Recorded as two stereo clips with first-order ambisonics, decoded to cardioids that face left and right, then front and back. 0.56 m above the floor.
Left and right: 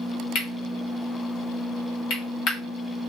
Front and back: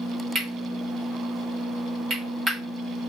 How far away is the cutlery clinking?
About 1.0 m.